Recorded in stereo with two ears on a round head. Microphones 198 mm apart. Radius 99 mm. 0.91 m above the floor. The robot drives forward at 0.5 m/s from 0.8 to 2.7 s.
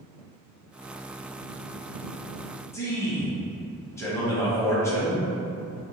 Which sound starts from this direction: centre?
A man speaking, at 2.7 s.